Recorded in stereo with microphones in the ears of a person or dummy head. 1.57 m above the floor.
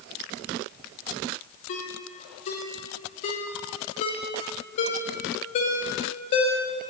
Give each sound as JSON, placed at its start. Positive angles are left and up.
{"t": 1.7, "sound": "a ringtone", "side_deg": 35, "distance_m": 0.8}